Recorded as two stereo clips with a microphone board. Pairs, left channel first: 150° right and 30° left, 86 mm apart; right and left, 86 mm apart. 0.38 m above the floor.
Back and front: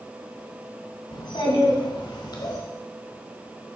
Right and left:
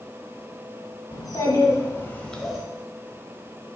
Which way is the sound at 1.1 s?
125° right.